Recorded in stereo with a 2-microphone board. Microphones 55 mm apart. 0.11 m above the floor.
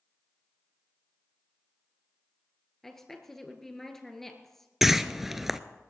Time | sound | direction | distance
2.8 | a woman speaking | 5° left (ahead or behind) | 1.7 m
4.8 | a whoosh | 5° right (ahead or behind) | 0.5 m